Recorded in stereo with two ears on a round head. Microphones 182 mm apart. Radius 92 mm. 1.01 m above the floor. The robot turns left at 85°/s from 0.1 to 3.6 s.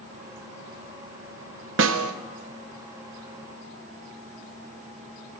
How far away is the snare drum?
About 0.6 m.